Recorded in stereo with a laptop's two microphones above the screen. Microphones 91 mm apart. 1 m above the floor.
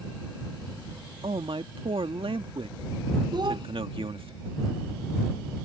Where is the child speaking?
55° right (ahead or behind).